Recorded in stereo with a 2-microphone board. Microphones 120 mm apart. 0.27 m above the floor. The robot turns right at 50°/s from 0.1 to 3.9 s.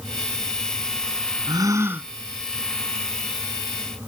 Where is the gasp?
45° right; by 2.1 s 15° right.